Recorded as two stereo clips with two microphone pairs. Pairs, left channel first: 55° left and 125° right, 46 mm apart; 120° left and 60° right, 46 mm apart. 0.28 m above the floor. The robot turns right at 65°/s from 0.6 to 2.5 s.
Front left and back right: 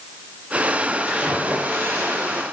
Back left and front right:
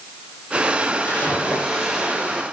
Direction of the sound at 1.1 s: 155° left.